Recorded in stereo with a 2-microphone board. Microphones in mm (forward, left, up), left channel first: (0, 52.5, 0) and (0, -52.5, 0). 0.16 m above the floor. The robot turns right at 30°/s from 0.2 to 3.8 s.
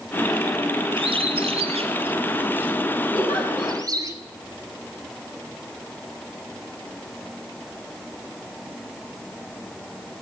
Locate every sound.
1.0 s a bird: 55° right (ahead or behind), 0.8 m; by 4.1 s 35° right (ahead or behind), 0.8 m
3.1 s a giggle: 5° left (ahead or behind), 3.5 m; by 3.8 s 15° right (ahead or behind), 3.5 m